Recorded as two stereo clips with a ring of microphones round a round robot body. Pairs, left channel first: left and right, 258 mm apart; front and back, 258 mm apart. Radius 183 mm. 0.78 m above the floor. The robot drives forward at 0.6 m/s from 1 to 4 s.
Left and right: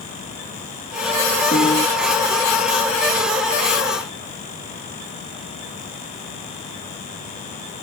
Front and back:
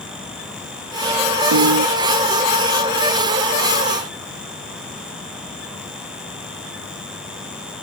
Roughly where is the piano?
Behind.